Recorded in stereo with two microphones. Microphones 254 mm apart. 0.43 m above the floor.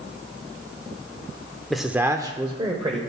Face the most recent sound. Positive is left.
turn(degrees=-20)  # may be behind; listen again after turning